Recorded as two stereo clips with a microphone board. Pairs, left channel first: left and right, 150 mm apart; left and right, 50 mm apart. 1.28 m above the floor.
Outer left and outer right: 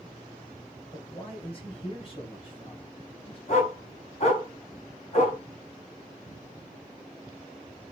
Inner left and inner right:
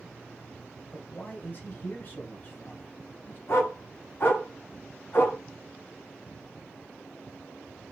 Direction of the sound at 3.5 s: 45° left (ahead or behind).